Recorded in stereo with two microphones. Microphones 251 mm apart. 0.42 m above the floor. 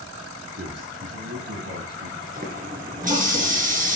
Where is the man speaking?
80° right, 4.5 m; by 2.2 s 65° right (ahead or behind), 2.5 m.